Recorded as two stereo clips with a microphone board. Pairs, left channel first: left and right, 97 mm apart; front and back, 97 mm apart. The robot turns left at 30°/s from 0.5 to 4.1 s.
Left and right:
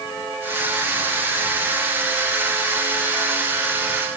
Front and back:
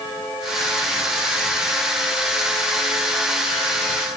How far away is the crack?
I don't hear a crack.